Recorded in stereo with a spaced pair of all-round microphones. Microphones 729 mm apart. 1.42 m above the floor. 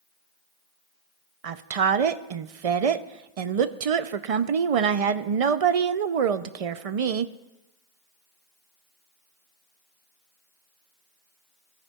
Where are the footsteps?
I don't hear footsteps.